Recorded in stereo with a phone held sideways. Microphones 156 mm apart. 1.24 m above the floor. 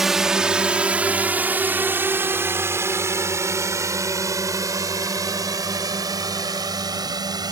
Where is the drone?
Centre (ahead or behind); by 7.5 s 25° right (ahead or behind).